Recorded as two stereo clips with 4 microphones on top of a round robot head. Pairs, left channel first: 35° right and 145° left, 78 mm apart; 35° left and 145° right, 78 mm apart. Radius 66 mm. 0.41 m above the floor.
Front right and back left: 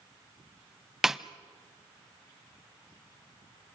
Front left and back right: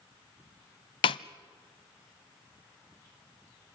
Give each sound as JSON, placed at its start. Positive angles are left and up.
{"t": 1.0, "sound": "a snare drum", "azimuth_deg": 60, "distance_m": 0.5}